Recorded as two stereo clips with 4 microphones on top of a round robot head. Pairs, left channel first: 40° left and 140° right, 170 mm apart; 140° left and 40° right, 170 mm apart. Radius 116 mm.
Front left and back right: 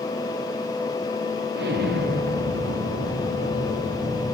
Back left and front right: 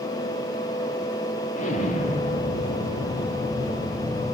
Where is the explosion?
170° right, 5 m.